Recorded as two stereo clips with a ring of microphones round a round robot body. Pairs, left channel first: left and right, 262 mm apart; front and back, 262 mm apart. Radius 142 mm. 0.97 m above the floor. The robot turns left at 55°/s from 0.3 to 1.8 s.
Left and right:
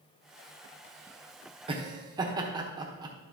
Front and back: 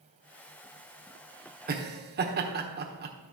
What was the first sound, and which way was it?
Laughter, 150° right.